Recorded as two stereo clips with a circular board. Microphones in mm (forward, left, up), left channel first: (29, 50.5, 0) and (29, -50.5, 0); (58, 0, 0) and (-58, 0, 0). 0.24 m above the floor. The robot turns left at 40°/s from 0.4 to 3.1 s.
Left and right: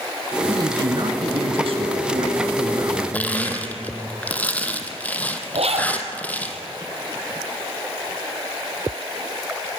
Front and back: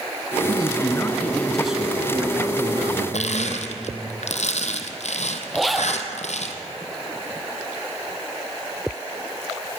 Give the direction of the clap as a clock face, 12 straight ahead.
I don't hear a clap.